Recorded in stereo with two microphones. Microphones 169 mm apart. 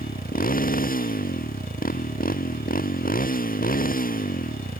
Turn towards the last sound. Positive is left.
turn(degrees=55)  # may be behind; listen again after turning